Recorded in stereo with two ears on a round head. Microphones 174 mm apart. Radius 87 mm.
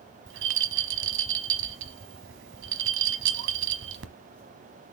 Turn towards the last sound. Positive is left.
turn(degrees=-70)  # may be behind; listen again after turning